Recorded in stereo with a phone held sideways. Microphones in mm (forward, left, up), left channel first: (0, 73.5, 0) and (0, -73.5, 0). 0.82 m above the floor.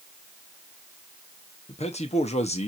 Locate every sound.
1.7 s a man speaking: 50° left (ahead or behind), 0.9 m